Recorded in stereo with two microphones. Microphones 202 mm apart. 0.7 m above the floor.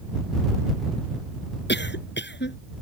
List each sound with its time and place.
1.7 s a cough: 60° left (ahead or behind)